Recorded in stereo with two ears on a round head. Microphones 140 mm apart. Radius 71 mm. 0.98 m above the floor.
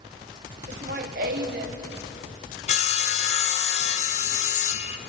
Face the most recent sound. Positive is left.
turn(degrees=45)  # may be behind; listen again after turning